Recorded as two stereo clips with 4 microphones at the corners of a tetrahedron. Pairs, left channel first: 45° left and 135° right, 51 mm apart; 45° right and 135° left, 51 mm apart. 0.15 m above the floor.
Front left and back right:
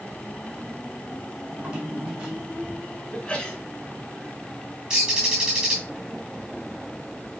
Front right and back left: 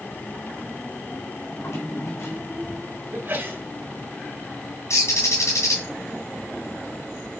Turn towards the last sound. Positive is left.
turn(degrees=-65)